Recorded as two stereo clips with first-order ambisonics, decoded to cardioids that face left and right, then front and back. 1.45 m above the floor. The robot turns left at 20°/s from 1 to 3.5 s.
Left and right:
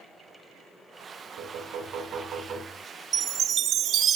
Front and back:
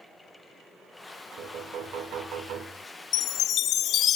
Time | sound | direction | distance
1.4 | knocking | 135° right | 5.5 m
3.1 | a chime | 35° right | 0.7 m